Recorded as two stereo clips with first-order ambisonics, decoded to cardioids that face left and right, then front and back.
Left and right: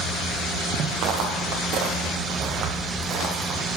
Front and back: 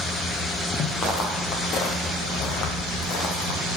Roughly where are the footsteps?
Ahead right.